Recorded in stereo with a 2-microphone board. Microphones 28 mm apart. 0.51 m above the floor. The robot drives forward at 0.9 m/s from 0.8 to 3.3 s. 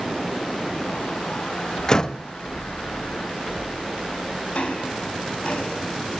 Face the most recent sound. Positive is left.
turn(degrees=50)  # may be behind; listen again after turning